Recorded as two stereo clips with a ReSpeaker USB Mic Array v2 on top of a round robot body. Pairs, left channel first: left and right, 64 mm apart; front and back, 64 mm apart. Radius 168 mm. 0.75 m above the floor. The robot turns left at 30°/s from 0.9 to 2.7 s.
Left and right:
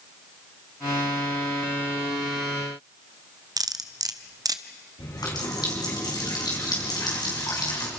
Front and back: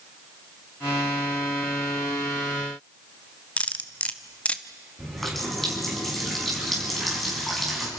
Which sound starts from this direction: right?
Cutlery clinking, at 3.6 s.